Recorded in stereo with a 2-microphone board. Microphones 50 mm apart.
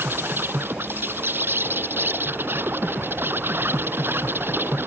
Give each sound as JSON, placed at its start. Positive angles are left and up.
{"t": 0.0, "sound": "an insect", "side_deg": -50}